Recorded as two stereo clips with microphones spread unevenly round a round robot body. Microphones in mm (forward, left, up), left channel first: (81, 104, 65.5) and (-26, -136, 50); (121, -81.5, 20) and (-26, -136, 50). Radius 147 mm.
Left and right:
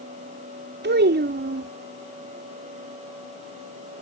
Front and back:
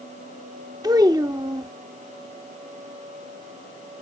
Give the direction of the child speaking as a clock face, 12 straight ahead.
3 o'clock.